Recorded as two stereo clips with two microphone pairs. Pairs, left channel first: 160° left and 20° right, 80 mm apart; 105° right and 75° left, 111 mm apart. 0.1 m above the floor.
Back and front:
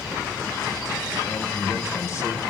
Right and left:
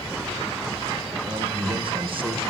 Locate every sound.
1.3 s a man speaking: 110° left, 5 m